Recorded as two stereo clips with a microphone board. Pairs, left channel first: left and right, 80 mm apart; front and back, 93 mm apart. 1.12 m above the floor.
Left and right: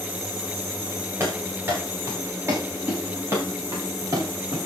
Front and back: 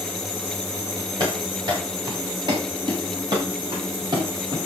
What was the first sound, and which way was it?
Running footsteps, 145° right.